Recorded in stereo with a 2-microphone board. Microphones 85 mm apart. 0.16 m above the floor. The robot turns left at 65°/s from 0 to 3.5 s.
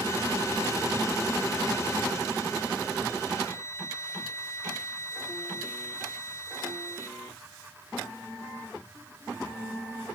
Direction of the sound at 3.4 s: 35° left (ahead or behind).